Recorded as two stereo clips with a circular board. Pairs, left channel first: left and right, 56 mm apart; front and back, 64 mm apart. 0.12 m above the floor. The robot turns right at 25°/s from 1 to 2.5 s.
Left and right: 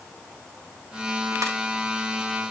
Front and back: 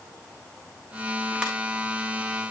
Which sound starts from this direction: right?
A ringtone, at 1.4 s.